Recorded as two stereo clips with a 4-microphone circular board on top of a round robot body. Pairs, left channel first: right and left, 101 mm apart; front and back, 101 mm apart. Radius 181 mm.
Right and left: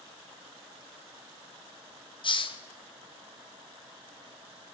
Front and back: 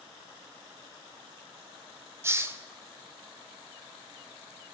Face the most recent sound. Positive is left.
turn(degrees=-115)